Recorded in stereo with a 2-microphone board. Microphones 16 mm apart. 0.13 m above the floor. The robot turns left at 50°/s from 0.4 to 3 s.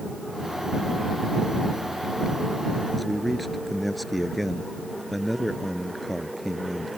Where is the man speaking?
5° left (ahead or behind).